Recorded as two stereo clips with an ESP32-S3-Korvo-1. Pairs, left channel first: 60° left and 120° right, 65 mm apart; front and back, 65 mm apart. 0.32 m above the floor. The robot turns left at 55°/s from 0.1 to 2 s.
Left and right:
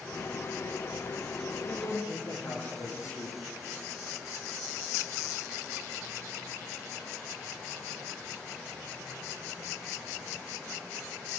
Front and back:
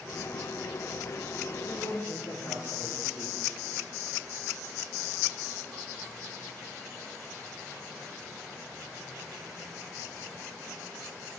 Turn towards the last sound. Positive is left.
turn(degrees=25)